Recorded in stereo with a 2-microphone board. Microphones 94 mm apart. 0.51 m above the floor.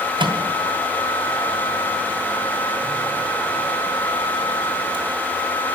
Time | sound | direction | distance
0.2 | a microwave | 60° right (ahead or behind) | 2 m